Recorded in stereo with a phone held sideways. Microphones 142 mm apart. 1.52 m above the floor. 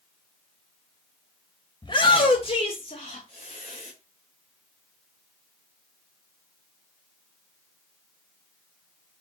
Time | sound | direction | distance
1.8 | a shout | 40° left (ahead or behind) | 2.0 m